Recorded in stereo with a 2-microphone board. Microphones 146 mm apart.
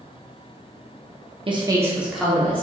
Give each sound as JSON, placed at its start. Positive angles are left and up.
{"t": 1.5, "sound": "a woman speaking", "side_deg": -35, "distance_m": 0.8}